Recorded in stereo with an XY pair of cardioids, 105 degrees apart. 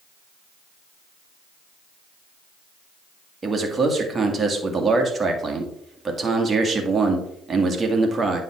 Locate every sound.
3.4 s a man speaking: 30° right, 1.9 m